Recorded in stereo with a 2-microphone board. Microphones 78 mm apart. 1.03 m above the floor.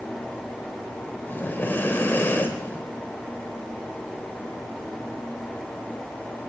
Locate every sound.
1.3 s breathing: 30° left (ahead or behind), 0.8 m